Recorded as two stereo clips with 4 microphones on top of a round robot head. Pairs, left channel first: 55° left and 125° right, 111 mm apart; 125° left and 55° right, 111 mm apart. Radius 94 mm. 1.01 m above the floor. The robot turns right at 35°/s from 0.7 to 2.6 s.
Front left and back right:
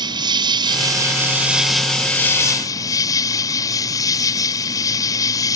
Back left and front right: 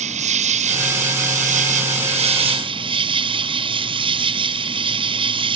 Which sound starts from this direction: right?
An insect, at 0.0 s.